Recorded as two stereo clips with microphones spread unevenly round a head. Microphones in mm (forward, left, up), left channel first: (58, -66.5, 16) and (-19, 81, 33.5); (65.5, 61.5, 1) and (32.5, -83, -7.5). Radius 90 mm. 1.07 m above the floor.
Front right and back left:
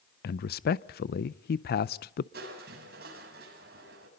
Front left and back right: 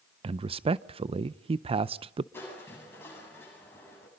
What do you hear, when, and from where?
0.2 s a man speaking: 55° right, 0.5 m
2.3 s crushing: 155° left, 7 m